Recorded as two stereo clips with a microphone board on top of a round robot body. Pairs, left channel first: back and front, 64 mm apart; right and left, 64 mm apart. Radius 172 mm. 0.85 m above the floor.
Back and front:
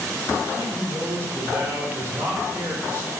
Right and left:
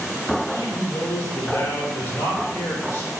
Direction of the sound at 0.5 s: 45° right.